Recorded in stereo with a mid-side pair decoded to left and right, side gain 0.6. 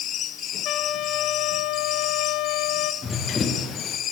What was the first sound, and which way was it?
A trumpet, 65° left.